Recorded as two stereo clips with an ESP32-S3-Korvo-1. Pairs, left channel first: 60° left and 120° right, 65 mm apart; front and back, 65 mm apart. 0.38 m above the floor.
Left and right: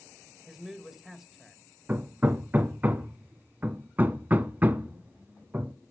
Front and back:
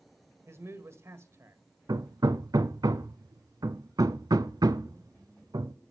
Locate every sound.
0.5 s a man speaking: 160° left, 1.6 m
1.9 s hammering: 175° left, 0.7 m